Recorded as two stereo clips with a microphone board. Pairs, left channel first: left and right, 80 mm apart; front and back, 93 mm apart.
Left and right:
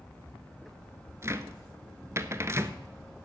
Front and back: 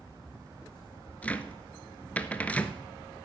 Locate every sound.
1.2 s a cupboard door: 65° right, 0.6 m